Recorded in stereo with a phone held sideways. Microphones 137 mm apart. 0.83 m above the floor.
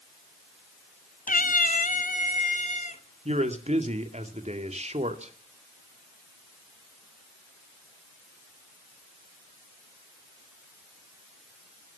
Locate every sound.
1.3 s a cat meowing: 80° left, 0.6 m; by 3.0 s 65° left (ahead or behind), 2 m
3.2 s a man speaking: 55° right (ahead or behind), 2.5 m